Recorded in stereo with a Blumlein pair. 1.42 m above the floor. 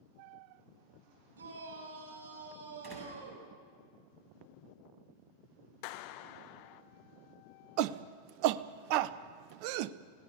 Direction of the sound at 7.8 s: 45° right.